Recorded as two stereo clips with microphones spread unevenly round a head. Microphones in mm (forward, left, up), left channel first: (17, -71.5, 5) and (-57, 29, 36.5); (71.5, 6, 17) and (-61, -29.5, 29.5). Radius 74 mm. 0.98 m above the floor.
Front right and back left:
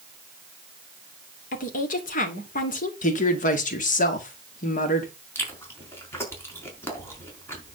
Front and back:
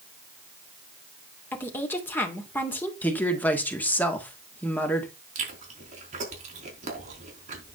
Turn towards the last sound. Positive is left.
turn(degrees=-125)